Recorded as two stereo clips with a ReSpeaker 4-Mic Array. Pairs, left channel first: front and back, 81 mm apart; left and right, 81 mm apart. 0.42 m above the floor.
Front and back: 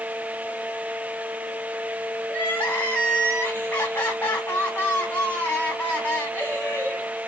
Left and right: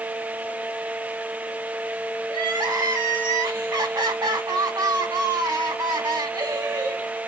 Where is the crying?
70° right, 2.0 m.